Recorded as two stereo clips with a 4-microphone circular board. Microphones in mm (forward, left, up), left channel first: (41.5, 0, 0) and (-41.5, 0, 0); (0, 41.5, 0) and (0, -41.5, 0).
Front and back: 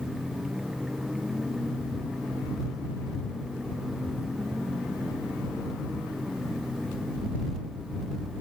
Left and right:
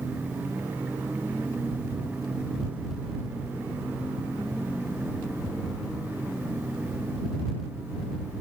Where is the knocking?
No knocking in this recording.